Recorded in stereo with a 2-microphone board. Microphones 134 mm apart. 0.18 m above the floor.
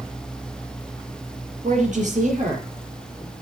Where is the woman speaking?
65° right (ahead or behind), 4.5 m; by 2.7 s 70° right (ahead or behind), 5.5 m.